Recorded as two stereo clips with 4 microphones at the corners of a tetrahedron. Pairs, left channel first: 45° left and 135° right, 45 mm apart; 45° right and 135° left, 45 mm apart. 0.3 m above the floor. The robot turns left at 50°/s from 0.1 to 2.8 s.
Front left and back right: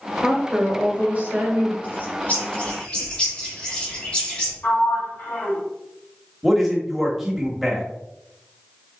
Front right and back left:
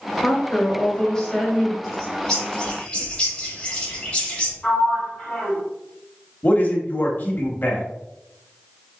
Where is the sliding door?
25° left, 2.5 m.